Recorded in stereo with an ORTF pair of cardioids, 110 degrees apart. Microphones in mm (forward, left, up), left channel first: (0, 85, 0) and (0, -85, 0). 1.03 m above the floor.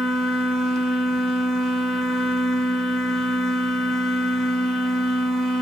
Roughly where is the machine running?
Ahead.